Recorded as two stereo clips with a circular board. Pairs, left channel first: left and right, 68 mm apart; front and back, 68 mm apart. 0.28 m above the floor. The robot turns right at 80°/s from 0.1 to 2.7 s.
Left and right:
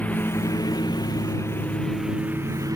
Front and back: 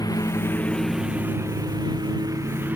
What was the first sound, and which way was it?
A lawn mower, 20° left.